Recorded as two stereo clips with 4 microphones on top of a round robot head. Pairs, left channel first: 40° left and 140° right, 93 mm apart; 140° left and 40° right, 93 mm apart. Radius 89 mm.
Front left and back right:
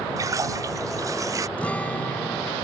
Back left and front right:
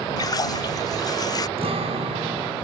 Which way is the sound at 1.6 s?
35° right.